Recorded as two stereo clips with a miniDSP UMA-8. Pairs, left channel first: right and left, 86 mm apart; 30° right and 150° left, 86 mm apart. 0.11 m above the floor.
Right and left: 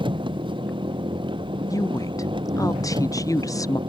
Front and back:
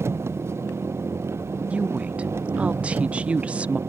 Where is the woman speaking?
135° right.